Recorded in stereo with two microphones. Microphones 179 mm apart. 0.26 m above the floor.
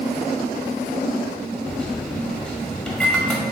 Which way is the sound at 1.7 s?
5° left (ahead or behind).